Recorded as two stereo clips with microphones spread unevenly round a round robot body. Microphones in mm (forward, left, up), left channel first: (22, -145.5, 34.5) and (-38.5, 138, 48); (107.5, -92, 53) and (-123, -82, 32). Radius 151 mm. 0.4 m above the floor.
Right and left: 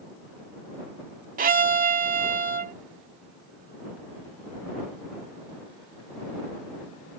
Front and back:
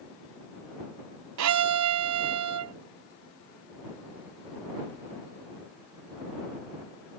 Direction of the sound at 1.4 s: 165° left.